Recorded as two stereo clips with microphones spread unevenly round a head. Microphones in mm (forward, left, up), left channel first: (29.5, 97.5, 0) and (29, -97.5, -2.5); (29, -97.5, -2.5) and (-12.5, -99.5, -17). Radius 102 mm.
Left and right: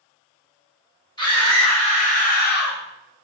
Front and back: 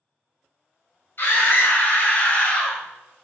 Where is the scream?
20° left, 1.6 m; by 2.8 s 80° left, 0.7 m.